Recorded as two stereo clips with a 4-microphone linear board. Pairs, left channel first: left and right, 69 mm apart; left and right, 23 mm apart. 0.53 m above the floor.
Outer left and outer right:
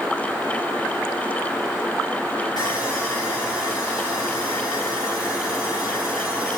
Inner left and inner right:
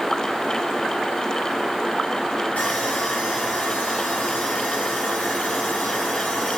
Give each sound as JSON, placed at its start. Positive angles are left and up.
{"t": 2.6, "sound": "sawing", "side_deg": 80, "distance_m": 9.0}